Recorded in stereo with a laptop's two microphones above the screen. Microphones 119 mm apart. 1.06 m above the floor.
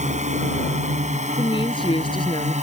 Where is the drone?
80° right; by 2.6 s 75° right (ahead or behind).